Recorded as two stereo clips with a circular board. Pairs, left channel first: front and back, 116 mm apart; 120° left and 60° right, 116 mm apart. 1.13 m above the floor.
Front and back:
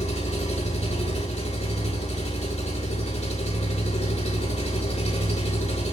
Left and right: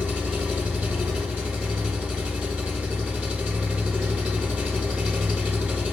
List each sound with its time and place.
0.0 s an engine running: 25° left, 3 m